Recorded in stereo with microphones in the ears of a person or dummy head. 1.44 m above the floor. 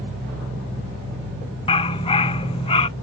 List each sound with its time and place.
1.7 s a dog barking: 25° left (ahead or behind)